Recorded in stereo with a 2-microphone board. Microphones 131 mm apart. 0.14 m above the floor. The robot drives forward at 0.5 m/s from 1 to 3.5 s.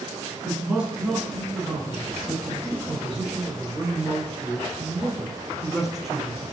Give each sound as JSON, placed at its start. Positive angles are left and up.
{"t": 0.4, "sound": "a man speaking", "side_deg": -5, "distance_m": 1.4}